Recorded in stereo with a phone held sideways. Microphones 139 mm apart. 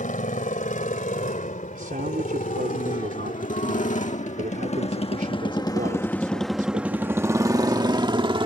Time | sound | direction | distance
0.0 | a motorcycle | 75° left (ahead or behind) | ?
1.8 | a man speaking | 85° right | ?